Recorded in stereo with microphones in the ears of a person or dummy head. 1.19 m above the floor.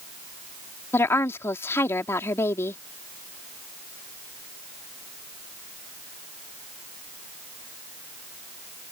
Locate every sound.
0.9 s a woman speaking: 10° left (ahead or behind)